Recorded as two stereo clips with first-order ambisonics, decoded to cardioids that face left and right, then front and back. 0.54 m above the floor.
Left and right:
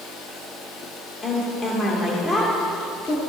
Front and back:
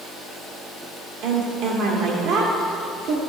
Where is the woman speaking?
150° left, 1.4 m.